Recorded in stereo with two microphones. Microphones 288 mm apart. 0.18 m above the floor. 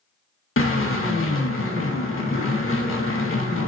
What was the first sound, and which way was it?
A drill, 50° left (ahead or behind).